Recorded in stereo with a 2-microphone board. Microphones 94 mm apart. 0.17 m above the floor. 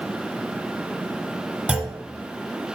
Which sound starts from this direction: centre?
A clunk, at 1.7 s.